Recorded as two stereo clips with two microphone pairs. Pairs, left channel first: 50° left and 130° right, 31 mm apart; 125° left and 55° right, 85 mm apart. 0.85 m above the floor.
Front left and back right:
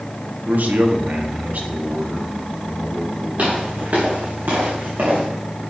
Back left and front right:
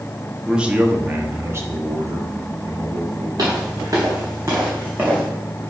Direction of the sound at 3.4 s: 100° right.